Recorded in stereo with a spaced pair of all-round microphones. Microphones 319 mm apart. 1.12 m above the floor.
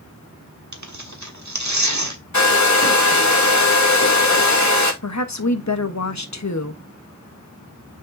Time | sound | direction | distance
0.7 | tearing paper | 60° right (ahead or behind) | 1.3 m
2.3 | a hair dryer | 60° left (ahead or behind) | 1.7 m
5.0 | a woman speaking | 60° left (ahead or behind) | 1.1 m